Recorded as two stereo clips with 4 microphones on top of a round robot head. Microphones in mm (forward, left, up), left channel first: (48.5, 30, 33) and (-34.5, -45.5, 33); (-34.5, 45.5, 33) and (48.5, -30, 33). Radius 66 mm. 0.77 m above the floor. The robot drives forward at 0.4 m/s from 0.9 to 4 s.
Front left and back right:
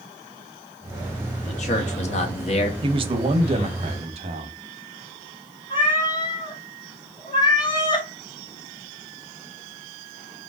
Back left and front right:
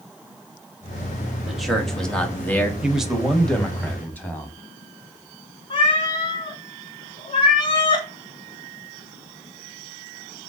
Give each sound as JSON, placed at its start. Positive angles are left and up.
{"t": 1.5, "sound": "a man speaking", "azimuth_deg": 45, "distance_m": 1.3}
{"t": 2.8, "sound": "a man speaking", "azimuth_deg": -120, "distance_m": 0.8}
{"t": 5.7, "sound": "a cat meowing", "azimuth_deg": 95, "distance_m": 1.0}